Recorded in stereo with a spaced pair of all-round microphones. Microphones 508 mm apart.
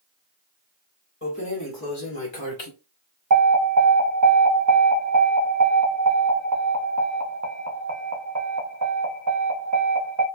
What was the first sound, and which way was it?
Keys jangling, 25° left (ahead or behind).